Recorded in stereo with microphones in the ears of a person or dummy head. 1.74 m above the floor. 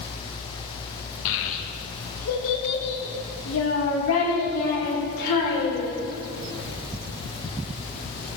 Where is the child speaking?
65° left (ahead or behind), 2.0 m.